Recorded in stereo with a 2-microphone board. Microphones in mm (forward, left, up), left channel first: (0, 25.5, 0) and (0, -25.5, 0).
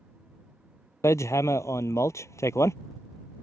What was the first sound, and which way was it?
Hammering, 75° left (ahead or behind).